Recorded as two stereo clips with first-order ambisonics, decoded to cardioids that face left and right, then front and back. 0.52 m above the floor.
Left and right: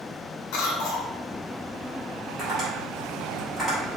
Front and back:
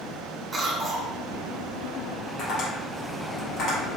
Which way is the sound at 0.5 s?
105° left.